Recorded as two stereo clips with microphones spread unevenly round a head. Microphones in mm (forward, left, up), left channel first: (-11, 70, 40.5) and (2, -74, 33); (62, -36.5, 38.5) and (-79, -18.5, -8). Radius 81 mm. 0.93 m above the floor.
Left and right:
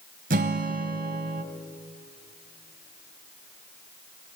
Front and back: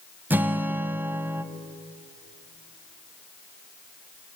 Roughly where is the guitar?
Right.